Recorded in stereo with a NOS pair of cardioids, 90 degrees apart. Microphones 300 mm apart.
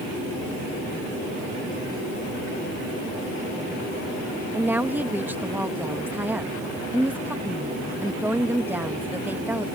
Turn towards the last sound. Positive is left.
turn(degrees=-5)